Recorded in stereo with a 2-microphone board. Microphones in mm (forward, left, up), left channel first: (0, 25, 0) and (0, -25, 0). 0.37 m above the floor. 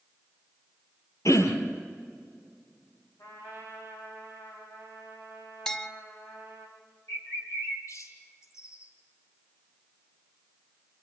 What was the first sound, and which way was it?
Throat clearing, 70° left (ahead or behind).